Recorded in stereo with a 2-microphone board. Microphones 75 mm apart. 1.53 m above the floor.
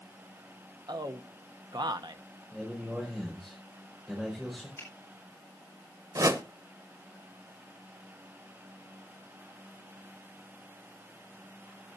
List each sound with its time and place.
0.9 s a man speaking: 65° right (ahead or behind), 0.8 m
2.5 s a man speaking: centre (ahead or behind), 5.5 m
4.8 s a finger snap: 35° left (ahead or behind), 8 m
6.2 s a whoosh: 45° right (ahead or behind), 1.0 m